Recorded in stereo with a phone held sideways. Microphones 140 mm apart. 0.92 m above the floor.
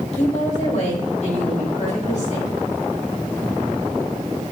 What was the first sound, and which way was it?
A woman speaking, 55° left (ahead or behind).